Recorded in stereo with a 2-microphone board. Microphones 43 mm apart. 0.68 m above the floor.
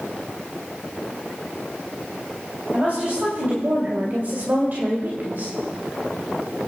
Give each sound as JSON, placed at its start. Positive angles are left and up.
{"t": 2.7, "sound": "a woman speaking", "side_deg": -40, "distance_m": 3.0}